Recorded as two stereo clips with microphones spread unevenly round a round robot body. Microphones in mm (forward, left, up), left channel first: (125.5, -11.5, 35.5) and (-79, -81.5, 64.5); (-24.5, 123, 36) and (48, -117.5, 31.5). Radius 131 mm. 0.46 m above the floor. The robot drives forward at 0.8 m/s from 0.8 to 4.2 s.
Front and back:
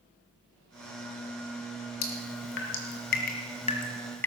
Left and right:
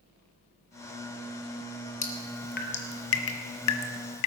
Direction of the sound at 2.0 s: 45° left.